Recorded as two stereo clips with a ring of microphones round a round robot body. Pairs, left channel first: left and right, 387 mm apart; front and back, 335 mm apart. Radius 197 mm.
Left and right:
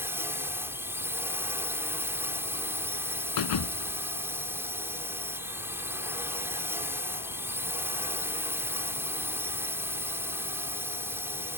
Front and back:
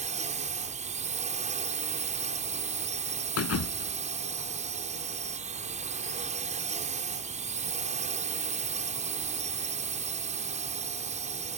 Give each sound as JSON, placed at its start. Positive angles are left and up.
{"t": 0.0, "sound": "a drone", "azimuth_deg": -165}
{"t": 3.4, "sound": "a thud", "azimuth_deg": 50}